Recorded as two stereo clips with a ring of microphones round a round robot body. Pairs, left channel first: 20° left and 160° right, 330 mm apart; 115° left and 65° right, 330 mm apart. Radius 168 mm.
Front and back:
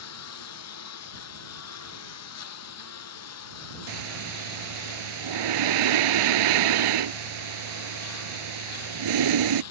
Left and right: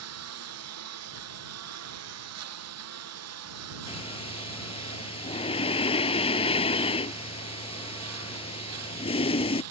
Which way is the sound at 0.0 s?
25° right.